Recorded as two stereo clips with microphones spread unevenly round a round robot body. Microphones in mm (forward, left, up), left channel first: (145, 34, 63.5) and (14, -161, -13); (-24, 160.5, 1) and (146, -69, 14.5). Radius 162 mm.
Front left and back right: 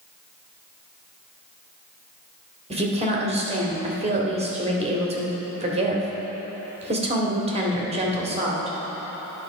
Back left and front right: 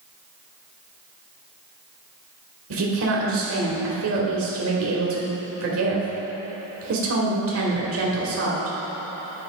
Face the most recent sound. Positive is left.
turn(degrees=-85)